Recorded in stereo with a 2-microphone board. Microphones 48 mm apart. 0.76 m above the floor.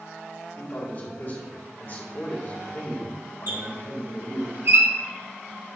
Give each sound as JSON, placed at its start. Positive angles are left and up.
{"t": 0.6, "sound": "a man speaking", "side_deg": 45, "distance_m": 3.0}
{"t": 3.5, "sound": "a squeak", "side_deg": -45, "distance_m": 1.1}